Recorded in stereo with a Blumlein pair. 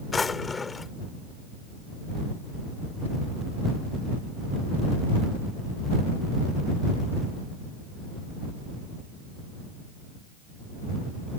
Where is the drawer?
15° left.